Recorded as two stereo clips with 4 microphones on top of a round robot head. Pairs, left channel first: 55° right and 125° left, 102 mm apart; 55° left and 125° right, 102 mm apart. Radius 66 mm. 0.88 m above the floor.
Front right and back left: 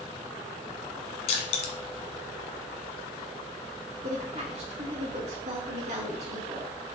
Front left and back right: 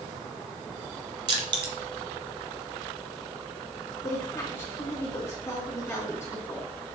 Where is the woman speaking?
115° left, 3 m.